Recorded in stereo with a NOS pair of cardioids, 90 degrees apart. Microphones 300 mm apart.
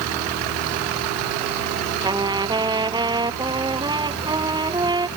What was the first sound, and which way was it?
A trumpet, 15° right.